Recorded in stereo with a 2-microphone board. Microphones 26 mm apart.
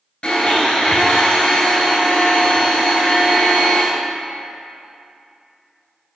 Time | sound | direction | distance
0.2 | a blender | 30° left (ahead or behind) | 3.5 m